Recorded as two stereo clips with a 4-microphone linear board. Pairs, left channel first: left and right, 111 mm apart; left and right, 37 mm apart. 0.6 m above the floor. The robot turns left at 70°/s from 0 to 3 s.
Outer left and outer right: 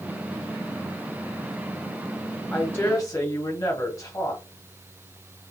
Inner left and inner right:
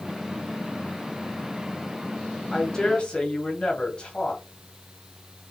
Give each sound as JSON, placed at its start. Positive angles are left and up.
{"t": 2.5, "sound": "a woman speaking", "azimuth_deg": 165, "distance_m": 1.4}